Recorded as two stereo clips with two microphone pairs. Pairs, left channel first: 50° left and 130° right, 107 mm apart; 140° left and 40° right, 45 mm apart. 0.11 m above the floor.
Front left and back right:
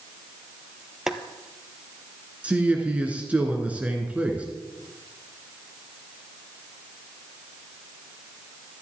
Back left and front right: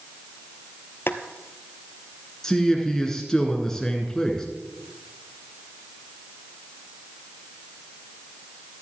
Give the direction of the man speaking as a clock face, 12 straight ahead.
6 o'clock.